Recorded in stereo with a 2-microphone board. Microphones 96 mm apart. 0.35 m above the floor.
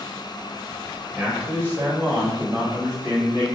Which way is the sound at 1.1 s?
15° right (ahead or behind).